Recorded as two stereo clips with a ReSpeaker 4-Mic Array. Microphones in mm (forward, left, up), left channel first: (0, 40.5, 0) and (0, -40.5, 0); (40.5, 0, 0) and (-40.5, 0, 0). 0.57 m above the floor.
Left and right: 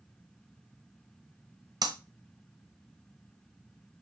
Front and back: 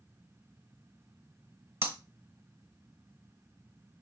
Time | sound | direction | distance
1.8 | breaking glass | 125° right | 1.1 m